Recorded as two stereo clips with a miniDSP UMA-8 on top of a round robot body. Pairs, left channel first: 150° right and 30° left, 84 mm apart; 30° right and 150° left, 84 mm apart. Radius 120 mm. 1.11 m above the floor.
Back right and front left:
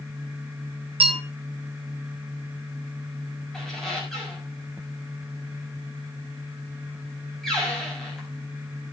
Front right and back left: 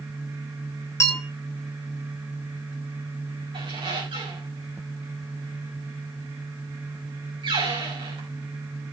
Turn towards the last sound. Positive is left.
turn(degrees=125)